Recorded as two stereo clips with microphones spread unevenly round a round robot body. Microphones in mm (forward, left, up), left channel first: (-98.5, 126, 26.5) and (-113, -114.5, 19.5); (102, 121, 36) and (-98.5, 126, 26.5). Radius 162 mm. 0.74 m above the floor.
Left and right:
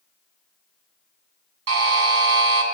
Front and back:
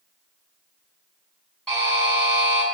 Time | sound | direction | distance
1.7 | a buzzer | 90° right | 3 m